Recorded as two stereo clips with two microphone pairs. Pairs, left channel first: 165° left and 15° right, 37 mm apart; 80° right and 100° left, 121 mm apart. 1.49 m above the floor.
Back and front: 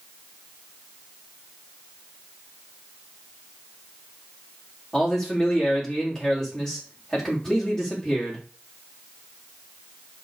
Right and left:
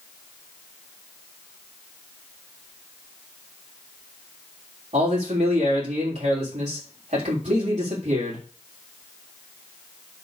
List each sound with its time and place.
4.9 s a man speaking: 95° left, 4 m